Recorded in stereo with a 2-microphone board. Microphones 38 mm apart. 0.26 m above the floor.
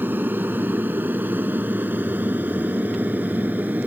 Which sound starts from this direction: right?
An aircraft, at 0.0 s.